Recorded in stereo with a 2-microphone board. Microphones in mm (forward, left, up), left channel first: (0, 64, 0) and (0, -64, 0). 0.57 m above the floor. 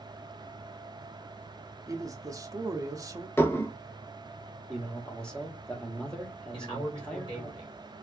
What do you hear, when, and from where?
1.9 s a man speaking: 25° right (ahead or behind), 0.6 m
3.4 s dishes clattering: 20° left (ahead or behind), 0.6 m
4.7 s a man speaking: 5° left (ahead or behind), 1.0 m
6.5 s a man speaking: 40° left (ahead or behind), 1.9 m